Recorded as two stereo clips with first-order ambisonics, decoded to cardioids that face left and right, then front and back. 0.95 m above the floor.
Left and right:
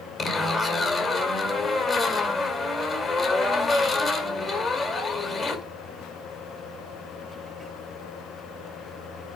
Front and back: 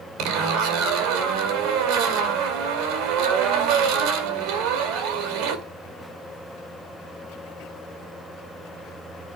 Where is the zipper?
160° left, 2 m.